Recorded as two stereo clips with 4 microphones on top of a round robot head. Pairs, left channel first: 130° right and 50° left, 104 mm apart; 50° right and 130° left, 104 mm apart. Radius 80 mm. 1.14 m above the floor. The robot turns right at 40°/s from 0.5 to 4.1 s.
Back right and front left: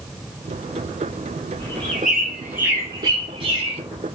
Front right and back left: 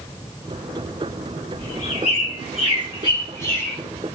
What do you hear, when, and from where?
1.6 s a bird: 60° right, 3 m; by 3.8 s 30° left, 3 m